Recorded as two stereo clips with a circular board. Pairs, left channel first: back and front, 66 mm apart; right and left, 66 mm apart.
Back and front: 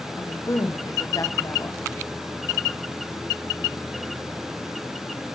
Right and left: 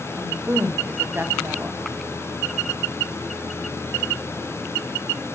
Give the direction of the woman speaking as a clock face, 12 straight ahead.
7 o'clock.